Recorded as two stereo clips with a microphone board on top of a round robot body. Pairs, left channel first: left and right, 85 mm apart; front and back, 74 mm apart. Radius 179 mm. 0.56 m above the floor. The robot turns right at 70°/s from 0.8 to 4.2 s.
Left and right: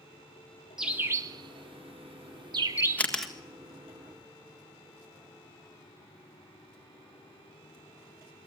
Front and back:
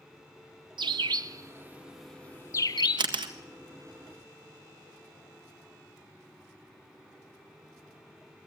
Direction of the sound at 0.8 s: 175° right.